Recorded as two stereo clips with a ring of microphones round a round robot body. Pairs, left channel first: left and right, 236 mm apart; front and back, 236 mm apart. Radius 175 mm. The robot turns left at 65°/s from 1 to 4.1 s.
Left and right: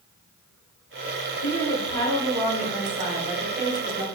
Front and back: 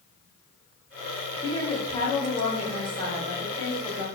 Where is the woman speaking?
55° left, 1.0 m; by 4.0 s 115° right, 1.0 m.